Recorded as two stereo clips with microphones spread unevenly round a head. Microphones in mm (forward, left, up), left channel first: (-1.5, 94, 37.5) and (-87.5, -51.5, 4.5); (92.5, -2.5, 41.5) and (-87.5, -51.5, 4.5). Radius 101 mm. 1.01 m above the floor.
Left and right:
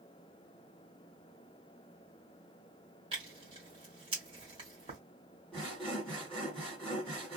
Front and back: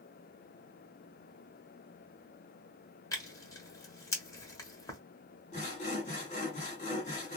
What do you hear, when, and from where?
3.1 s tearing paper: 50° right, 1.2 m
5.5 s sawing: 20° right, 1.4 m